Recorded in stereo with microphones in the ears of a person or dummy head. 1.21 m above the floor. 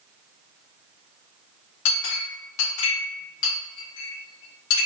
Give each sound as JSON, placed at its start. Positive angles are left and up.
{"t": 1.9, "sound": "a clink", "side_deg": 75, "distance_m": 1.5}